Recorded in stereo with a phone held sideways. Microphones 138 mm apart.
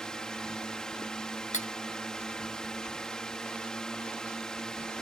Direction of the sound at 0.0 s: 5° left (ahead or behind).